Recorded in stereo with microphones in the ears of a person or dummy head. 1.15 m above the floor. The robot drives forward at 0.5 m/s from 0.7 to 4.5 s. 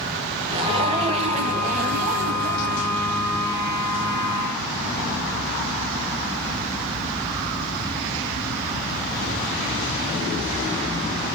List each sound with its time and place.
0.5 s a zipper: 30° right (ahead or behind), 1.3 m; by 3.0 s 35° right (ahead or behind), 1.2 m